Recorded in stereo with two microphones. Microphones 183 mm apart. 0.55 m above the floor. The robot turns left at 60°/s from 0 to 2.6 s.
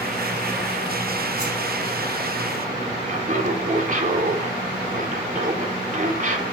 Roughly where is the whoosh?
Right.